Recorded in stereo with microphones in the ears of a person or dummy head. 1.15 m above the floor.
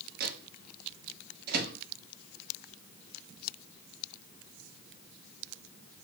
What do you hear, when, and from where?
0.2 s a microwave: 55° right (ahead or behind), 0.8 m